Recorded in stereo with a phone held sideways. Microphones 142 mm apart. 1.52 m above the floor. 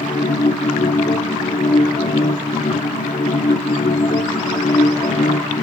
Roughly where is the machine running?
Left.